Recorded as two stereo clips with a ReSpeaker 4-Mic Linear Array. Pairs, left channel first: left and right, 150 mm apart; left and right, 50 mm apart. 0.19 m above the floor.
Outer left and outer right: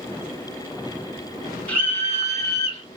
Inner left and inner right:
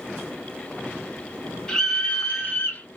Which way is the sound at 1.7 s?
10° left (ahead or behind).